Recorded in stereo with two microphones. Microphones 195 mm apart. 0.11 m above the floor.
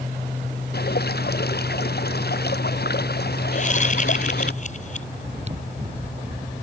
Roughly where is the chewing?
Right.